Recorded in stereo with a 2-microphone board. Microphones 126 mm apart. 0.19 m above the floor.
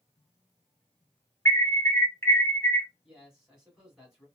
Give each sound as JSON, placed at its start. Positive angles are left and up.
{"t": 1.4, "sound": "an alarm", "side_deg": 20, "distance_m": 0.8}
{"t": 3.0, "sound": "a man speaking", "side_deg": -5, "distance_m": 1.7}